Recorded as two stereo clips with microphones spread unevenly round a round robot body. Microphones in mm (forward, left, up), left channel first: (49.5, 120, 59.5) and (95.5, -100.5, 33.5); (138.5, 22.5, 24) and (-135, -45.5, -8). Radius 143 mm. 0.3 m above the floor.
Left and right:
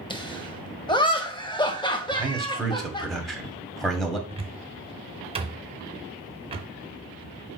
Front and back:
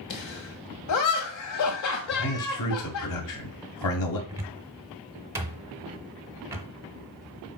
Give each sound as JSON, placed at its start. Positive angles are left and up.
{"t": 0.1, "sound": "laughter", "azimuth_deg": 30, "distance_m": 1.8}
{"t": 2.1, "sound": "a man speaking", "azimuth_deg": 10, "distance_m": 2.0}
{"t": 4.3, "sound": "a cupboard door", "azimuth_deg": -105, "distance_m": 0.9}